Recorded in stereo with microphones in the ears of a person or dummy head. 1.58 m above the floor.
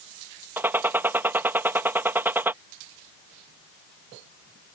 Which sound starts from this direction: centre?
A gunshot, at 0.6 s.